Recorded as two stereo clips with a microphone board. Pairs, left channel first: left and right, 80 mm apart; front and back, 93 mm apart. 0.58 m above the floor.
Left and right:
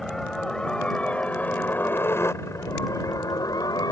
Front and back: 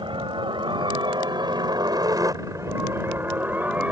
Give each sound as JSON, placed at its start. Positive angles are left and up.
{"t": 0.0, "sound": "a helicopter", "azimuth_deg": 175}